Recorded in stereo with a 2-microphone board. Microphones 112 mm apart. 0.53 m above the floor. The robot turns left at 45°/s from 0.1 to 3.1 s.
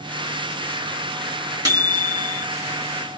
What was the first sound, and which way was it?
A microwave, 50° right.